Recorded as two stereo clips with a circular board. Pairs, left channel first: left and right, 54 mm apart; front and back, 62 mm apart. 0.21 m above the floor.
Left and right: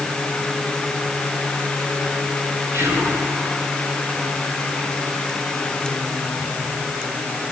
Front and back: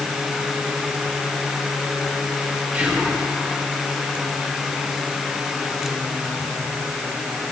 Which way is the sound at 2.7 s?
110° right.